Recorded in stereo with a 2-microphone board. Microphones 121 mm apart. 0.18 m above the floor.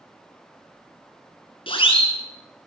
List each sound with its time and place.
1.7 s a siren: 50° left (ahead or behind), 3 m